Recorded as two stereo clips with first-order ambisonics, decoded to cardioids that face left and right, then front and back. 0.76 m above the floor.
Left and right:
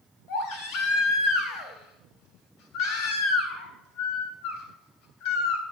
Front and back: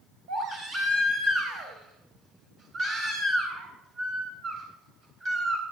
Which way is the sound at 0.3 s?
125° left.